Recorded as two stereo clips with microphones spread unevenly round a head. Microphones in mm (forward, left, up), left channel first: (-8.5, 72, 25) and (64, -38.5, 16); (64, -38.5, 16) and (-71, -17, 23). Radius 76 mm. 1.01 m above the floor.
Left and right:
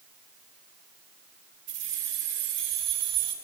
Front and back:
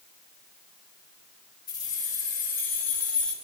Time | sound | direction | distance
1.7 | keys jangling | 70° right | 6.5 m